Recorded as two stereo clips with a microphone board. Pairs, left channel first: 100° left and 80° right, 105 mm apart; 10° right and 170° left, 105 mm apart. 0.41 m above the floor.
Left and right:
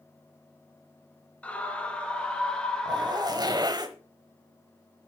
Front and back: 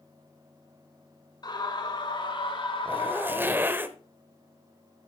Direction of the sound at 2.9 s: 120° right.